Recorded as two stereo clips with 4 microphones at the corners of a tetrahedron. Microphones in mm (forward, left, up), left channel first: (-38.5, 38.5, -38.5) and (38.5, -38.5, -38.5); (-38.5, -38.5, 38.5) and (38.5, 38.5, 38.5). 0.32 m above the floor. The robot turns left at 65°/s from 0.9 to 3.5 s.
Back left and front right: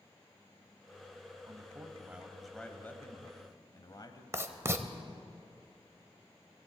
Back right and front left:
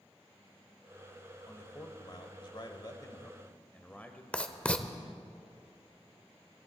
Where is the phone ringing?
I don't hear a phone ringing.